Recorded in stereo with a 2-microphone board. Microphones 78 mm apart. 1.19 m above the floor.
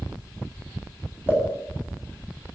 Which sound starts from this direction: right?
A pop, at 1.3 s.